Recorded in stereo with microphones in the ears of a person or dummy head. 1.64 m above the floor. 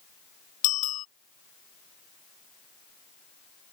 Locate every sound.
0.6 s a bicycle bell: 45° left (ahead or behind)